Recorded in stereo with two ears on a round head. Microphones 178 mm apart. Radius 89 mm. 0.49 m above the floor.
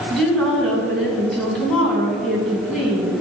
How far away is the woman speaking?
About 4 m.